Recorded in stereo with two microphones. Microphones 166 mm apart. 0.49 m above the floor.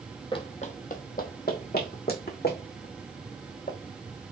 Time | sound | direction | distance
0.3 | running footsteps | 30° left (ahead or behind) | 0.7 m